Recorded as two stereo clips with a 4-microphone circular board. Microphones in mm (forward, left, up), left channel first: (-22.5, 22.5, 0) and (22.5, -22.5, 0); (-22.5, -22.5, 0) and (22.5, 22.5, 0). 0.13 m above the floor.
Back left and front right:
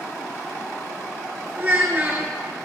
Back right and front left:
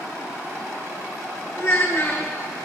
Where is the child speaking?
95° right, 1.0 m.